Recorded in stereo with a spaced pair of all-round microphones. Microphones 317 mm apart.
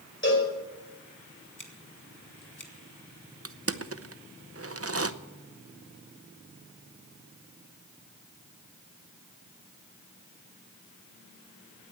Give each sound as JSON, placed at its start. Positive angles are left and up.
{"t": 0.2, "sound": "a cowbell", "side_deg": 35, "distance_m": 5.0}
{"t": 1.6, "sound": "scissors", "side_deg": 70, "distance_m": 2.0}
{"t": 3.5, "sound": "crushing", "side_deg": -45, "distance_m": 0.7}